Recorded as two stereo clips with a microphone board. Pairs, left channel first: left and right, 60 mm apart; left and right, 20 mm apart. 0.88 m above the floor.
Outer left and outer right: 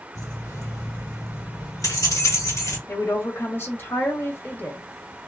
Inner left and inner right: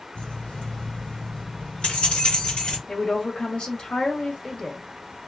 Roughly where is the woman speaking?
Left.